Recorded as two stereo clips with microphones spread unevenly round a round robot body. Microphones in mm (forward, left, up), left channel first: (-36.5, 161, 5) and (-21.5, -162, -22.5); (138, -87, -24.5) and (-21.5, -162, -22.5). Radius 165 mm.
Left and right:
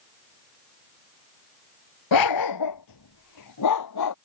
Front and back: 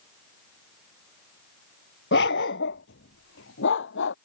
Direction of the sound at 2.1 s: 65° left.